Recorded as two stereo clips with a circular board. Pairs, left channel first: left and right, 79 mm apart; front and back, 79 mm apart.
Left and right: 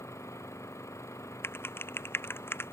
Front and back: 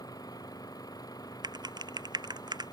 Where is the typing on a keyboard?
150° left.